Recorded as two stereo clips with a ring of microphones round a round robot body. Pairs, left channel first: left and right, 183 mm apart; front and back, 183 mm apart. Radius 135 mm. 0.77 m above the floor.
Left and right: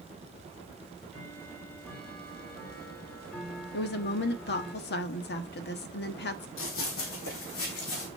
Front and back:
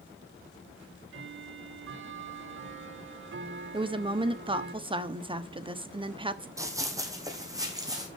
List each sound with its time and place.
0.8 s ticking: 175° left, 1.6 m
3.7 s a woman speaking: 120° left, 1.2 m
6.6 s running footsteps: 105° left, 2.5 m; by 8.1 s 110° left, 4 m